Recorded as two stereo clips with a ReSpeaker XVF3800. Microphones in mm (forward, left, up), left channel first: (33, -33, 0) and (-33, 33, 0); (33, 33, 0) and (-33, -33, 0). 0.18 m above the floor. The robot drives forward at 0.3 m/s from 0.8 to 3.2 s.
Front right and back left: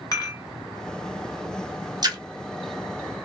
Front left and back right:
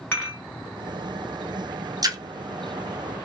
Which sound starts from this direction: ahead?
Dishes clattering, at 0.1 s.